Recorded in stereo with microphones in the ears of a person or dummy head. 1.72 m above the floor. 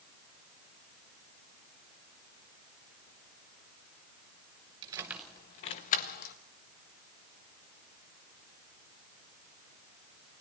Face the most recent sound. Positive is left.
turn(degrees=50)  # may be behind; listen again after turning